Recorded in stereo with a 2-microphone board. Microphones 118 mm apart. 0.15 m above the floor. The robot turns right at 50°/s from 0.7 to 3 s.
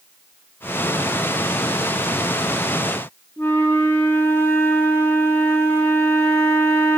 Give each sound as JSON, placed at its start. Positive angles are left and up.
{"t": 3.4, "sound": "a flute", "side_deg": 20, "distance_m": 0.6}